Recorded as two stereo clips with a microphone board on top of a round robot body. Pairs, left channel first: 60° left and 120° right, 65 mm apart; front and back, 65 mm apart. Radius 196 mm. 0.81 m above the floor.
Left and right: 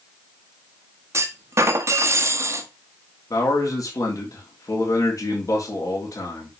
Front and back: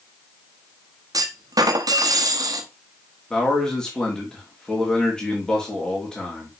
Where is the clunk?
165° right, 1.1 m.